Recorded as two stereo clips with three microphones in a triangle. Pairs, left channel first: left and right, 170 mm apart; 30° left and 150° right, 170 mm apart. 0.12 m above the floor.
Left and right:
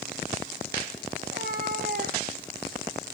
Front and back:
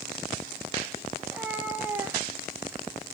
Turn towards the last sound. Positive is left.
turn(degrees=-75)